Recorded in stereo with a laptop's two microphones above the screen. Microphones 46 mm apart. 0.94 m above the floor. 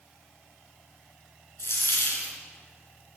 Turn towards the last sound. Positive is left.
turn(degrees=70)  # may be behind; listen again after turning